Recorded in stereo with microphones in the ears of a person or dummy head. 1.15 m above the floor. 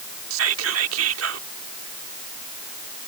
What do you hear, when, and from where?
0.3 s whispering: 85° right